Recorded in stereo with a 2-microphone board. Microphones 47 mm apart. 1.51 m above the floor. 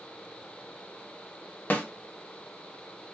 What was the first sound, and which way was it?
A snare drum, 40° left (ahead or behind).